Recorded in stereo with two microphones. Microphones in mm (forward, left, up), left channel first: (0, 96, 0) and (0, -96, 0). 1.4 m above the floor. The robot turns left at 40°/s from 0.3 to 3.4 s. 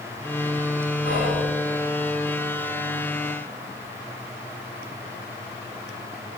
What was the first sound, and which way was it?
Whispering, 65° left (ahead or behind).